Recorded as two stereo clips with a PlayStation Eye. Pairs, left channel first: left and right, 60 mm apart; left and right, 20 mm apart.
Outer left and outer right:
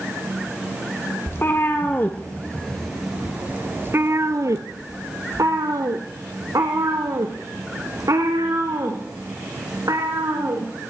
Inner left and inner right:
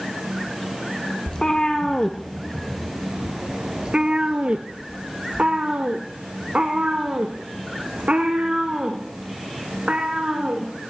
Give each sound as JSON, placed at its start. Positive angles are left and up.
{"t": 1.3, "sound": "a cat meowing", "side_deg": 40, "distance_m": 1.5}